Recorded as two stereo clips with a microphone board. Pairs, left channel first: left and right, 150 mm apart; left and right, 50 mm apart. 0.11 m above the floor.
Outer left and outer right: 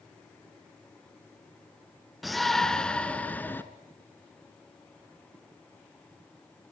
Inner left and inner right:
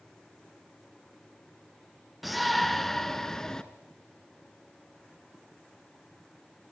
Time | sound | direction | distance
2.2 | a shout | centre (ahead or behind) | 1.1 m